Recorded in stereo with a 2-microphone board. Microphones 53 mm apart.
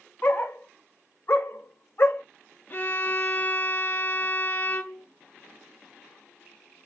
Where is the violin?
30° left (ahead or behind), 0.7 m.